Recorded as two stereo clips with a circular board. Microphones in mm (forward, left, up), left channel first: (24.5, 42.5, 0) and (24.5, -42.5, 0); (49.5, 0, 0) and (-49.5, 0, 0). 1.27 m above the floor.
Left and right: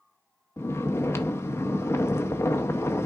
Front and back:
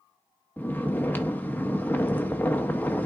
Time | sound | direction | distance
0.6 | snoring | 60° left | 0.6 m